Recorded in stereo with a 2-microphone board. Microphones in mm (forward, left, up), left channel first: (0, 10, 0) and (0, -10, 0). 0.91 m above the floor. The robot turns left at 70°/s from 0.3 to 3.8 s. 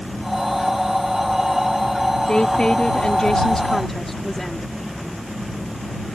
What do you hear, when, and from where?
2.3 s a woman speaking: 130° left; by 4.7 s 20° left